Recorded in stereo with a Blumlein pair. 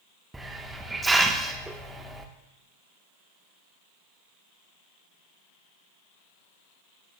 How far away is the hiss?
About 1.1 m.